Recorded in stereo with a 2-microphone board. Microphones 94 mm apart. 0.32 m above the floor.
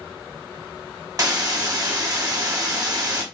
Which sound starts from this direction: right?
A hiss, at 1.2 s.